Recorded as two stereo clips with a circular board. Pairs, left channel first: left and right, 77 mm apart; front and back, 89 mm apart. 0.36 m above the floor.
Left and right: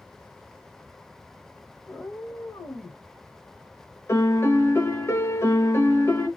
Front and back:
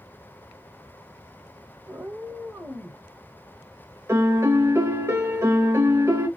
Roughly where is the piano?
Behind left.